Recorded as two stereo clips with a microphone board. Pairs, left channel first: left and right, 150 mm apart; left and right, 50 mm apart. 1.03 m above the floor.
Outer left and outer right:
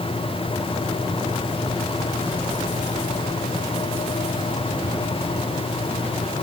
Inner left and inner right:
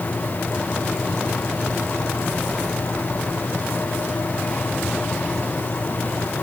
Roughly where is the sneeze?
I don't hear a sneeze.